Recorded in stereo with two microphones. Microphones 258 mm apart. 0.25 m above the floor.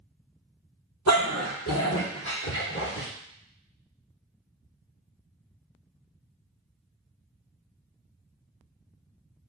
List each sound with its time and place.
1.1 s a dog barking: 85° left, 1.7 m; by 3.1 s 40° left (ahead or behind), 2.5 m